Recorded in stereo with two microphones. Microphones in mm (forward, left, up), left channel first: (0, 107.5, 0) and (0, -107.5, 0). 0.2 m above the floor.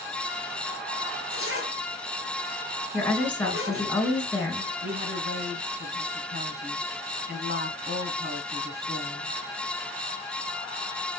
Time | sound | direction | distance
1.3 | a zipper | 70° right (ahead or behind) | 4 m
2.9 | a woman speaking | 5° left (ahead or behind) | 3 m
4.8 | a woman speaking | 45° right (ahead or behind) | 2.5 m